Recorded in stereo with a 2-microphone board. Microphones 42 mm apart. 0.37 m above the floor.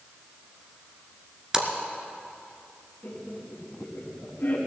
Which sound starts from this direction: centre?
A splash, at 1.5 s.